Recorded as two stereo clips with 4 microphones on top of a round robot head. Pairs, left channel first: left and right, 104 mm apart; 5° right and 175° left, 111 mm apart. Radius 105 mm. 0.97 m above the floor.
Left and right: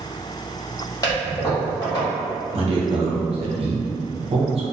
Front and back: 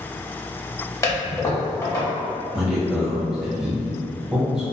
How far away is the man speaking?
About 0.7 m.